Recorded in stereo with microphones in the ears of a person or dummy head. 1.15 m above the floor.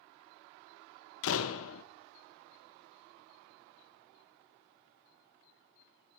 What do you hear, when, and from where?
1.2 s a door slam: 80° left, 0.6 m